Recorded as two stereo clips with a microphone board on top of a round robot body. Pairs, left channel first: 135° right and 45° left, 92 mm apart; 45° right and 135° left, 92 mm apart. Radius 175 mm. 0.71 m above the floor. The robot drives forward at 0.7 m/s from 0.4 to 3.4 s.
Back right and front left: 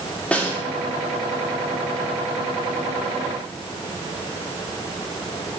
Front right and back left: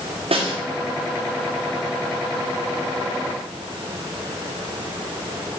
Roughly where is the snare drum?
Behind left.